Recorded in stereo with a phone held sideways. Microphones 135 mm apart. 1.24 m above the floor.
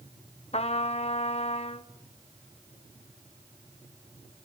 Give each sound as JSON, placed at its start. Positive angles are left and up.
{"t": 0.5, "sound": "a trumpet", "side_deg": 50, "distance_m": 0.8}